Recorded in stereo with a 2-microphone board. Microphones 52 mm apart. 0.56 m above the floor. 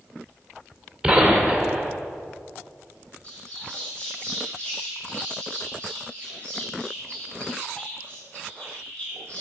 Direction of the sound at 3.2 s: 25° left (ahead or behind).